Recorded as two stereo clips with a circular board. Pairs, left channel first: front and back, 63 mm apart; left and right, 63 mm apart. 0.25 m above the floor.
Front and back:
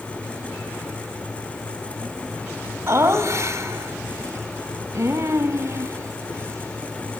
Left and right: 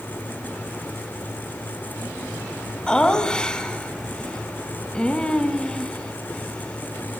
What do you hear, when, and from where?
2.9 s laughter: 160° left, 1.6 m